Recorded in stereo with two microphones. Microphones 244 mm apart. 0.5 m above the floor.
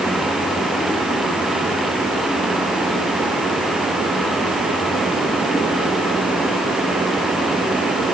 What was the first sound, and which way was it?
Only background noise.